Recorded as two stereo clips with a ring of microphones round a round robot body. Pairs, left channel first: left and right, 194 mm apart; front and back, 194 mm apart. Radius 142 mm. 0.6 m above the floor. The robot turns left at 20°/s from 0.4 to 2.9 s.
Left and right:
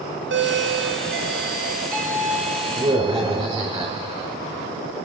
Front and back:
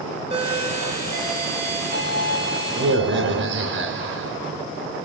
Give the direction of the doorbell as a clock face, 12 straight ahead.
4 o'clock.